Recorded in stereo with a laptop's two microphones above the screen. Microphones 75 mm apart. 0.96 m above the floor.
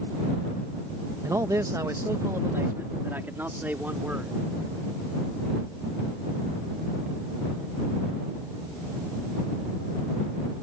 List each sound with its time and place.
1.2 s a man speaking: 45° right (ahead or behind); by 4.4 s 20° right (ahead or behind)